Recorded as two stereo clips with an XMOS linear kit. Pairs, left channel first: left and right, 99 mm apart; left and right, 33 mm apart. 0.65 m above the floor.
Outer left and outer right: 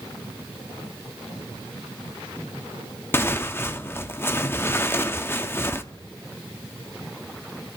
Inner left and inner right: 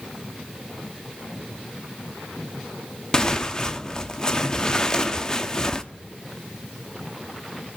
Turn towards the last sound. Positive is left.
turn(degrees=25)  # may be behind; listen again after turning